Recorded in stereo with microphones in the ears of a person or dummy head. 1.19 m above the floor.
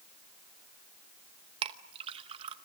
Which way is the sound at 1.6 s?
35° right (ahead or behind).